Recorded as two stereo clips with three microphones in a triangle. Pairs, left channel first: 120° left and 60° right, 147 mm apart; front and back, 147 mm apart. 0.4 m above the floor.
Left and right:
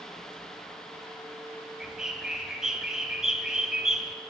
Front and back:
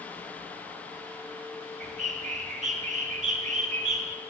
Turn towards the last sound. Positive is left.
turn(degrees=-145)